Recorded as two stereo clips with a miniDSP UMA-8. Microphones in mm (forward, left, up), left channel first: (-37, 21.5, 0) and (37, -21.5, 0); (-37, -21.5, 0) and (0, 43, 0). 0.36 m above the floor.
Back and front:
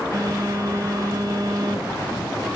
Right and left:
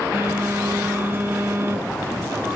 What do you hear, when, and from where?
0.1 s a phone buzzing: 10° left, 1.5 m